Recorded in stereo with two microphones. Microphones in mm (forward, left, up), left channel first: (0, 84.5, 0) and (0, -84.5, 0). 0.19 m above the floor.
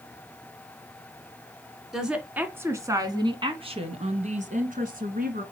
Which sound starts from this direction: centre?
A woman speaking, at 1.9 s.